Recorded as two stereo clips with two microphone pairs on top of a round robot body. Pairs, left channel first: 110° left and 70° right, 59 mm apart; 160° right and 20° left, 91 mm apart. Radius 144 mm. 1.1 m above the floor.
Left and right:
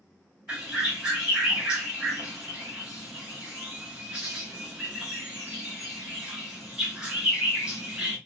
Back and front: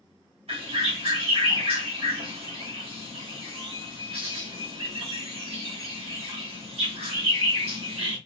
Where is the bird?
10° left, 1.2 m.